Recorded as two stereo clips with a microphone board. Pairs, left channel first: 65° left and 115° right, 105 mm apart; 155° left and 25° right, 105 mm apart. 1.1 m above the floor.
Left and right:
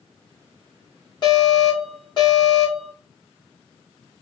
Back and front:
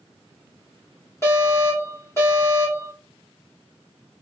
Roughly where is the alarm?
Left.